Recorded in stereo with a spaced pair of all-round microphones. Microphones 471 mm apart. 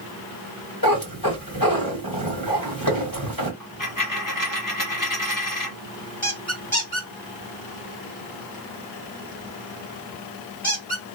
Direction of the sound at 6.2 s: 15° left (ahead or behind).